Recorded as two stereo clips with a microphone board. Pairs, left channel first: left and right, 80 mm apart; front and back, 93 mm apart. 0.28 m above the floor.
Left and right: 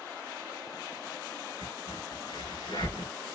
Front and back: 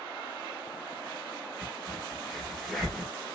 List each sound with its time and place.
1.6 s a crack: 85° left, 1.1 m